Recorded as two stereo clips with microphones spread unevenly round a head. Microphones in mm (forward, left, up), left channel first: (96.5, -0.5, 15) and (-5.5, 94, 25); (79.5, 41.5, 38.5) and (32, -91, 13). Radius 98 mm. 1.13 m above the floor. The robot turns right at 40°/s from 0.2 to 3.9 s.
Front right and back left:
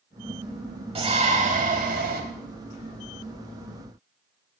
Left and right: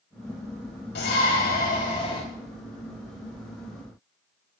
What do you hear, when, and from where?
0.9 s a shout: 90° left, 3.5 m; by 2.2 s 140° left, 3.5 m